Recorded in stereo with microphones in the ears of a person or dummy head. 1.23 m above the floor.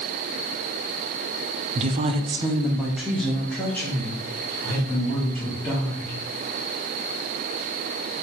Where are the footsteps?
I don't hear footsteps.